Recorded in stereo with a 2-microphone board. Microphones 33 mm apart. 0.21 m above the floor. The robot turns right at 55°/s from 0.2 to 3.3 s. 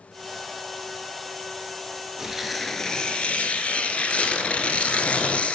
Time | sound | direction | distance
2.2 | tearing paper | 15° right | 1.2 m